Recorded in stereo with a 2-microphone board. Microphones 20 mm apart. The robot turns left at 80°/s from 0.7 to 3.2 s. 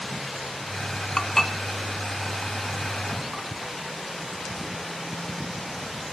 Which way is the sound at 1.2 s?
35° left (ahead or behind).